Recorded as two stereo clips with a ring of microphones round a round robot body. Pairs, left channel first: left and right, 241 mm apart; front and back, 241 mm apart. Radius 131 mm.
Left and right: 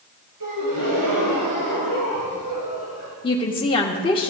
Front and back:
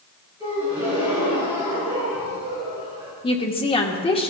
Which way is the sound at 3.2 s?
45° left.